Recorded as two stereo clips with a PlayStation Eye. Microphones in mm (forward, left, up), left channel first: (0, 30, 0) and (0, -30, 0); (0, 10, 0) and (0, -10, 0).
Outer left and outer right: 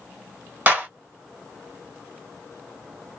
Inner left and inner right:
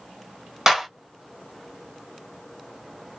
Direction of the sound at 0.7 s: 30° right (ahead or behind).